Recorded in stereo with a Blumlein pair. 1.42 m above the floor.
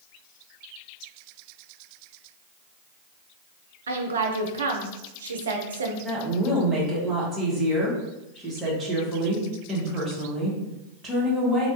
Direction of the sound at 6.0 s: 15° right.